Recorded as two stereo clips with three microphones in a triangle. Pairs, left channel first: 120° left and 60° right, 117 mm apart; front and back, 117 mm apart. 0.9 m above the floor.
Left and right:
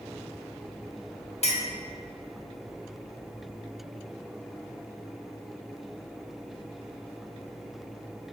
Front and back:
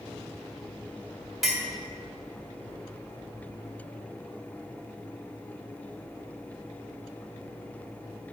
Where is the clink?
90° left, 1.6 m.